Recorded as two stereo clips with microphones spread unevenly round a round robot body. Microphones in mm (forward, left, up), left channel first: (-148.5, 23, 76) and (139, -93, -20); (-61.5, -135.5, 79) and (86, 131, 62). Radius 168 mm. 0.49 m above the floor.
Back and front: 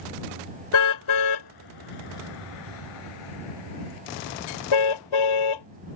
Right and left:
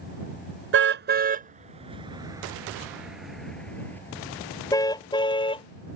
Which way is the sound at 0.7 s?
115° left.